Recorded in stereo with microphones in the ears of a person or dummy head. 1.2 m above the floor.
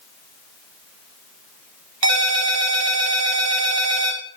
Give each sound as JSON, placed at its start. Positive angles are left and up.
{"t": 2.0, "sound": "a ringtone", "side_deg": -85, "distance_m": 1.8}